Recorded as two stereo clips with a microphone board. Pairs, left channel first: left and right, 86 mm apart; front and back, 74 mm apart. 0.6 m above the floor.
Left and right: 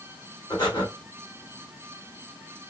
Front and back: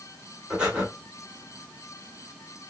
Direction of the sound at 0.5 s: 105° left.